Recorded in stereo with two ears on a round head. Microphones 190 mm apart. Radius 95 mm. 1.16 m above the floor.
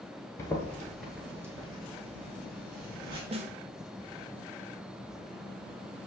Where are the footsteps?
15° left (ahead or behind), 1.3 m; by 3.2 s 50° right (ahead or behind), 1.7 m.